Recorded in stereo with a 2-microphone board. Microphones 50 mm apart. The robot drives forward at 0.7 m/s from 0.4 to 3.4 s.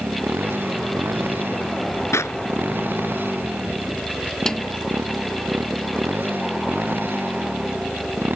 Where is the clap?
80° left.